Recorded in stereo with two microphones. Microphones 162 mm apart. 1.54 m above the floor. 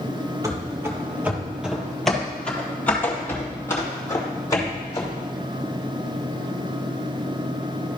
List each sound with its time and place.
0.4 s running footsteps: 20° right (ahead or behind), 1.6 m; by 5.2 s 25° left (ahead or behind), 3 m